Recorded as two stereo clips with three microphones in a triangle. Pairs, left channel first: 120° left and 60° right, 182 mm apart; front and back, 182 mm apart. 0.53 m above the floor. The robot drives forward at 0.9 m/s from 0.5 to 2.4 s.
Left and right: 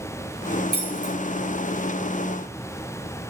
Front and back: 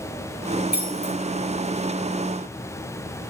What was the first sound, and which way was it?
Keys jangling, 35° right.